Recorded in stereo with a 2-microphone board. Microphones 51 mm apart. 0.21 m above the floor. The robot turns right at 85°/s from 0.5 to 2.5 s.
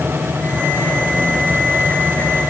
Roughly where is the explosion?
No explosion in this recording.